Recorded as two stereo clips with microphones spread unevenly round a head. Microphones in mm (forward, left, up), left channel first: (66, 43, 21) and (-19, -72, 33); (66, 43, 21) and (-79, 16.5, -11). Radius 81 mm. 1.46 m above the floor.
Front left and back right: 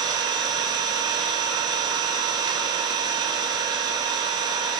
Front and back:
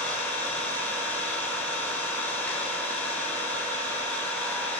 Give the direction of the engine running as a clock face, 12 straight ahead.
2 o'clock.